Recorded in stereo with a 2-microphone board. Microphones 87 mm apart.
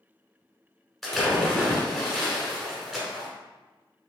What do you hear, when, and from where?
1.0 s a splash: 5° left (ahead or behind), 1.1 m